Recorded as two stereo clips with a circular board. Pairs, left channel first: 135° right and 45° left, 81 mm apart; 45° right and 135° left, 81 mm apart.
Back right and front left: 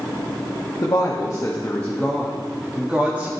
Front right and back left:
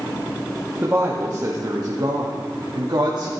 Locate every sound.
0.8 s a woman speaking: 165° right, 1.3 m; by 3.3 s 110° left, 1.5 m